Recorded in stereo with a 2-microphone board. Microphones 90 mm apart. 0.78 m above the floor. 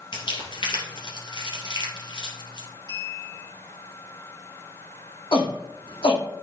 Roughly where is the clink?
Left.